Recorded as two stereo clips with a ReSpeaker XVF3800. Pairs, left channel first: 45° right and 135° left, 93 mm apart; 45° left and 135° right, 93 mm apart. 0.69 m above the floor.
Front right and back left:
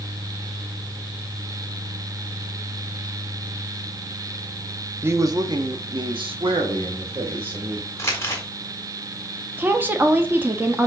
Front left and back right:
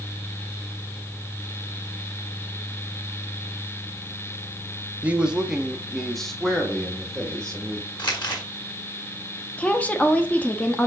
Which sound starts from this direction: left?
A woman speaking, at 9.6 s.